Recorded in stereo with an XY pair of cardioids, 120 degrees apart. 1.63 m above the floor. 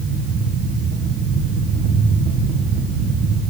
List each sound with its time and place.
0.0 s a fan: 70° right, 1.6 m